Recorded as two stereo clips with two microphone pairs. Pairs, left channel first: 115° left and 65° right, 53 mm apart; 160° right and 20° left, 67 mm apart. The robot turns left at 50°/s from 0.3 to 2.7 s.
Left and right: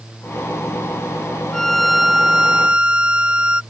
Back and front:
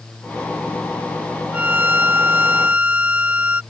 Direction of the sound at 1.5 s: 50° left.